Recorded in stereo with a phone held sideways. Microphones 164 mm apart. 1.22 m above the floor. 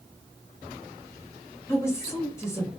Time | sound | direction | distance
1.7 | a woman speaking | 15° left (ahead or behind) | 1.0 m